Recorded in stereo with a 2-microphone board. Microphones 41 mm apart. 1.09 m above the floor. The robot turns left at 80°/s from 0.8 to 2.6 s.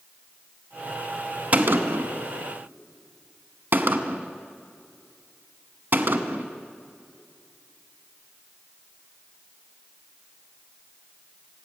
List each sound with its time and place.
1.5 s a gunshot: 35° right (ahead or behind), 1.0 m; by 6.5 s 60° right (ahead or behind), 1.0 m